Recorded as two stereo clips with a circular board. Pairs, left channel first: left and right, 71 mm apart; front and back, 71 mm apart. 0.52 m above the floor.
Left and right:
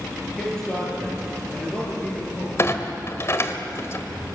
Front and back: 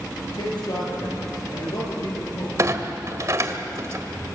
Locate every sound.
0.2 s a man speaking: 10° left, 8.5 m; by 2.5 s 20° left, 8.5 m
2.6 s a clunk: 140° left, 1.5 m